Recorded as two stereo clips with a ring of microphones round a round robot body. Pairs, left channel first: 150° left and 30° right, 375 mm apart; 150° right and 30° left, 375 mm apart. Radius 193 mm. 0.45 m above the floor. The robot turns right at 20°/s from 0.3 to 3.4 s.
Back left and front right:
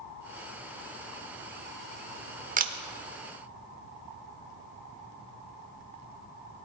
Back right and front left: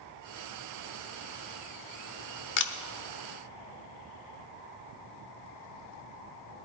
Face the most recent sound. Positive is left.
turn(degrees=-80)